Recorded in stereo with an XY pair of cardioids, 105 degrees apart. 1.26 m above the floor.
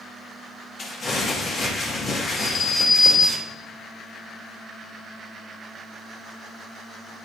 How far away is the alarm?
About 3 m.